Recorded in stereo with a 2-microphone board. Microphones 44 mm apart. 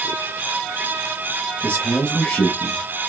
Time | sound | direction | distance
1.6 | a man speaking | 40° left (ahead or behind) | 1.1 m